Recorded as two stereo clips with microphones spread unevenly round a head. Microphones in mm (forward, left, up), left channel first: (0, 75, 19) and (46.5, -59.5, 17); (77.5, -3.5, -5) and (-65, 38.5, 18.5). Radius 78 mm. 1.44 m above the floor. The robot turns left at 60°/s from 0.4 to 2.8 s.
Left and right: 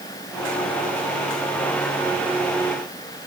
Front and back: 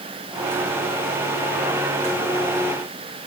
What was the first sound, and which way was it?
Only background noise.